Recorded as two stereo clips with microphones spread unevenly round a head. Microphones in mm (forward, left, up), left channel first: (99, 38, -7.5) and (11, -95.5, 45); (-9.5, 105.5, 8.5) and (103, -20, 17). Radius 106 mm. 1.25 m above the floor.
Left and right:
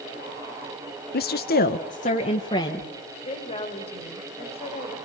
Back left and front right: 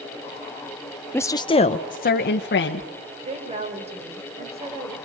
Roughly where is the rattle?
No rattle in this recording.